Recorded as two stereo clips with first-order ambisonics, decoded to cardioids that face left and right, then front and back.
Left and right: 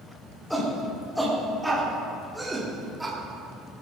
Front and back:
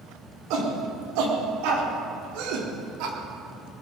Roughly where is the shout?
Behind.